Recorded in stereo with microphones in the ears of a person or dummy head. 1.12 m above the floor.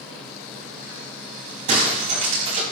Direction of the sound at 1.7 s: 40° right (ahead or behind).